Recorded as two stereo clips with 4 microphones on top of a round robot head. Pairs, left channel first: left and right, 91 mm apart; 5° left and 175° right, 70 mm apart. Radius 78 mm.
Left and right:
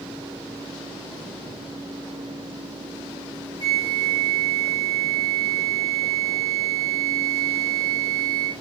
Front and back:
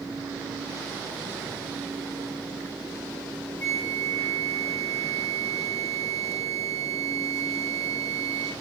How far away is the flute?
About 0.7 m.